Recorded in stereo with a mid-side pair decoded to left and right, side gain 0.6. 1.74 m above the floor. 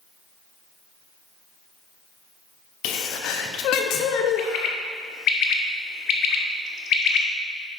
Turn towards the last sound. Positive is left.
turn(degrees=50)